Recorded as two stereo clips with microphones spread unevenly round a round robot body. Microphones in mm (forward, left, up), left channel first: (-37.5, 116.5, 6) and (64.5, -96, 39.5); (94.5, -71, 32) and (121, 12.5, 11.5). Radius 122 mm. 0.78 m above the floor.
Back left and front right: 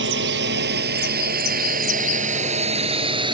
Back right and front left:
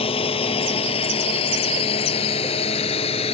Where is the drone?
110° right; by 3.4 s 135° right.